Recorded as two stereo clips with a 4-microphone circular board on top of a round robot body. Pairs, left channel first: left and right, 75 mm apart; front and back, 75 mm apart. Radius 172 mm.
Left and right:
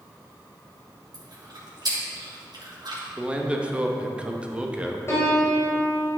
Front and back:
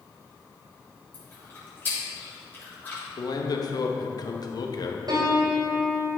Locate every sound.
1.1 s chewing: 65° right, 3 m
3.2 s a man speaking: 15° right, 1.3 m
5.1 s a piano: 150° left, 1.6 m